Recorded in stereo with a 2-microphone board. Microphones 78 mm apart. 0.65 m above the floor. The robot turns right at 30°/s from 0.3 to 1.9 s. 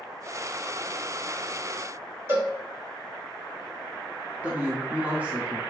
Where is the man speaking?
20° right (ahead or behind), 1.0 m.